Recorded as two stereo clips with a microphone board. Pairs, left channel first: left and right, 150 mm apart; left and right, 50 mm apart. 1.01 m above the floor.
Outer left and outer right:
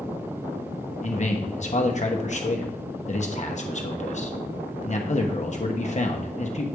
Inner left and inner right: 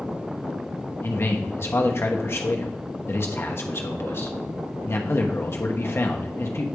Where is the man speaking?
50° left (ahead or behind), 0.9 m.